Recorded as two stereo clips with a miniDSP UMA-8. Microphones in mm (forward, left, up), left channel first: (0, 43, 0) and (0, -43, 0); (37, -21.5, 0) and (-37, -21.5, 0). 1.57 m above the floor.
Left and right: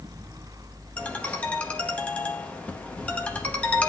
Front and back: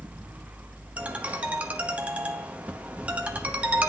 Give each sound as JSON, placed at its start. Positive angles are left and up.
{"t": 1.0, "sound": "a ringtone", "azimuth_deg": 140, "distance_m": 0.9}